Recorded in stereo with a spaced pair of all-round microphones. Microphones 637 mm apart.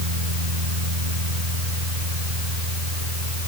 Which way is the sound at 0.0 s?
85° right.